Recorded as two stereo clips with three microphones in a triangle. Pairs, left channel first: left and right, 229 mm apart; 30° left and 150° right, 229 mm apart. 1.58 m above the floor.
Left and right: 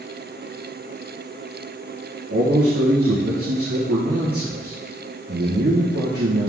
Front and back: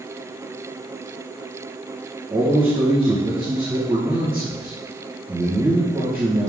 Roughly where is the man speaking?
Right.